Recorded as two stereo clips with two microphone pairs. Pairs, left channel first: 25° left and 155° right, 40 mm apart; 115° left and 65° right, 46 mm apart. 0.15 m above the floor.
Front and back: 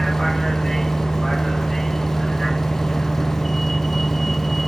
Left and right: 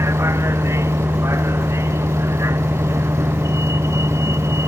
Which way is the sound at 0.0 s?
60° right.